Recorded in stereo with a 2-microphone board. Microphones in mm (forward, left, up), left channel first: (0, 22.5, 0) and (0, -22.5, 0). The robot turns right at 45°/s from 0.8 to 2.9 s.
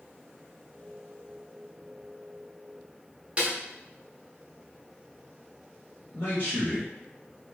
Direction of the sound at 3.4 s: 30° right (ahead or behind).